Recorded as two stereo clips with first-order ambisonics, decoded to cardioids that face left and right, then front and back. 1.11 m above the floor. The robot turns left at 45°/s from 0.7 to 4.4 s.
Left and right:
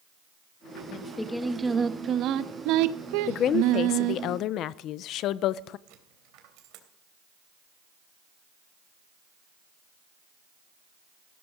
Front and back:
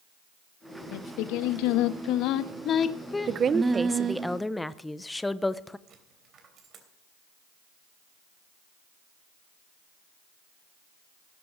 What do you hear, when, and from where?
0.9 s singing: 20° left, 0.8 m; by 4.2 s 125° right, 0.8 m
3.3 s a woman speaking: 130° left, 0.6 m; by 5.8 s 80° left, 0.6 m
5.9 s a dropped coin: 120° right, 3 m